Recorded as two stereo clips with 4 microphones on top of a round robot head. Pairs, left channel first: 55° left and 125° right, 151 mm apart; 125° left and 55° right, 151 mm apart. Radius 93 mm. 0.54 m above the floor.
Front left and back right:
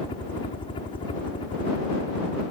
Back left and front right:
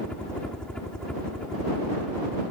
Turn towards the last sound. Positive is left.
turn(degrees=45)